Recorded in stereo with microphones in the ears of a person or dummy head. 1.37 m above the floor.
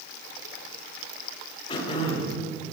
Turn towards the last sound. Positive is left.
turn(degrees=35)  # may be behind; listen again after turning